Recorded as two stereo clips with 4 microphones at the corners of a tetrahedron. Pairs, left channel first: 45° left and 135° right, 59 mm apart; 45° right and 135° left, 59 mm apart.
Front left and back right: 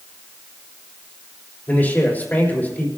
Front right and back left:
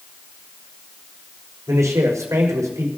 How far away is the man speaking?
About 6 m.